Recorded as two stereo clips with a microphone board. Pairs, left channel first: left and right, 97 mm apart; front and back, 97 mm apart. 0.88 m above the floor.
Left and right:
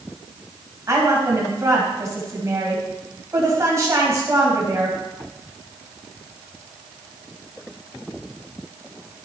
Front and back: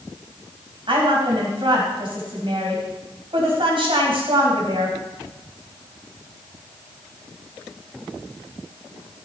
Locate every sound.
0.9 s a woman speaking: 150° right, 4.5 m